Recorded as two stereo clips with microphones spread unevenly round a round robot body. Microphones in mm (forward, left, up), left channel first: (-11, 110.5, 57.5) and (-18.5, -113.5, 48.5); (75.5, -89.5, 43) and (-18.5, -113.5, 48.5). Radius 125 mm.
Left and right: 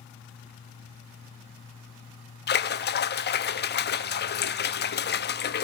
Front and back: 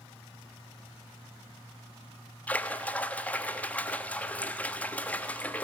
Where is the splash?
80° left, 1.2 m.